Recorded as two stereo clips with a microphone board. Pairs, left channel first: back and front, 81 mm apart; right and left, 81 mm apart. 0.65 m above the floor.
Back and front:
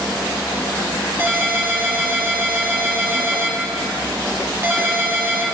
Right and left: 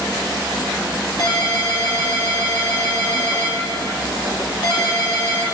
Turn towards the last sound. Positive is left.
turn(degrees=-60)